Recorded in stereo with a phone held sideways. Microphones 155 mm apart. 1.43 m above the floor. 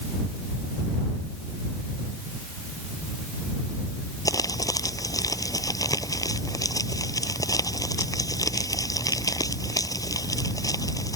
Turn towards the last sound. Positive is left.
turn(degrees=25)  # may be behind; listen again after turning